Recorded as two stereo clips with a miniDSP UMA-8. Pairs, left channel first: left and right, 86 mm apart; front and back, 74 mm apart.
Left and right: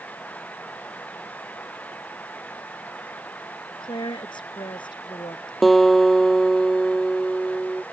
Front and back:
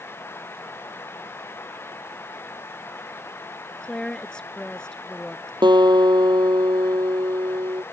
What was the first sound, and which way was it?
A woman speaking, 80° left.